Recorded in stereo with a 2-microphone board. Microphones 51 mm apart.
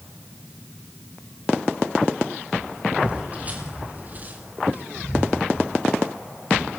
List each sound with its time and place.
3.0 s footsteps: 30° right (ahead or behind), 3.5 m; by 5.4 s 45° right (ahead or behind), 2.5 m